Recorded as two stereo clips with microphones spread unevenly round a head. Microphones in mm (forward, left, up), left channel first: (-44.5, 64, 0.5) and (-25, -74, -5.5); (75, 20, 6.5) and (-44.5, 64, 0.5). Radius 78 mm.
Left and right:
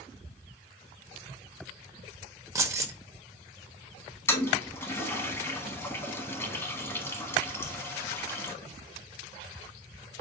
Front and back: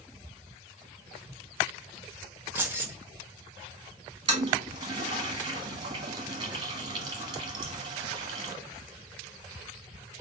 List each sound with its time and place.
2.5 s keys jangling: 135° right, 0.7 m
4.3 s a toilet flushing: 150° left, 1.1 m